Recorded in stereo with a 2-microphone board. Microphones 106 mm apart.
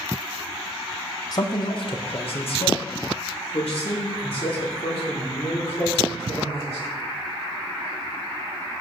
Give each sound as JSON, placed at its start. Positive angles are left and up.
{"t": 1.3, "sound": "a man speaking", "side_deg": 40, "distance_m": 0.8}